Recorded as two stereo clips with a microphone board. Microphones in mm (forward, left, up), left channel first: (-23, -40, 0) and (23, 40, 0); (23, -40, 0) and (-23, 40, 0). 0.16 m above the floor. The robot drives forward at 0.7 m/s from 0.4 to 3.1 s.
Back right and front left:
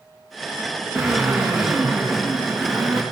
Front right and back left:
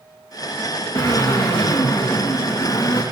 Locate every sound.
0.9 s a drill: 25° right, 9 m; by 3.0 s 30° right, 7.5 m